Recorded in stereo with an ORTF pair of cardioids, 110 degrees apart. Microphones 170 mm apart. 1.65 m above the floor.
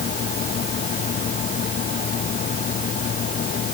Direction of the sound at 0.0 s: 50° left.